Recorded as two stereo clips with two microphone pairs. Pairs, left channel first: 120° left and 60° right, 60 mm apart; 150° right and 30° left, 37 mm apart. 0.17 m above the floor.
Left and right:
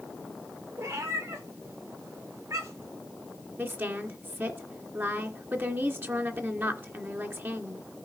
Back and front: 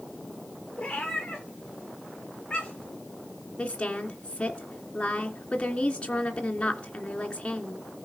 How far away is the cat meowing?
About 5.5 m.